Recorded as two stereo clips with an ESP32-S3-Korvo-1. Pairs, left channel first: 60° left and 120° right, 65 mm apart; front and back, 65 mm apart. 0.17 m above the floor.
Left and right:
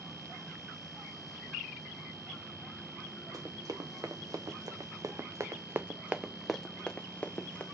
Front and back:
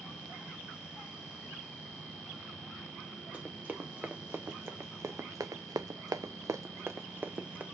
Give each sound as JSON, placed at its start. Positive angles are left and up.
{"t": 3.3, "sound": "running footsteps", "azimuth_deg": -115, "distance_m": 2.0}